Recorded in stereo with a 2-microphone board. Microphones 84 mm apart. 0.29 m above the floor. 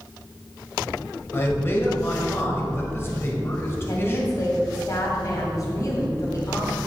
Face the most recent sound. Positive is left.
turn(degrees=45)  # may be behind; listen again after turning